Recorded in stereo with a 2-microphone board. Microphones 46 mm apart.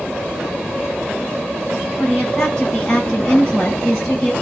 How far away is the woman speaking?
About 1.9 m.